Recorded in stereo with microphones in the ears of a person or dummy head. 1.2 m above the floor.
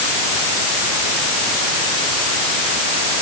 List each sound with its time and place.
Only background noise.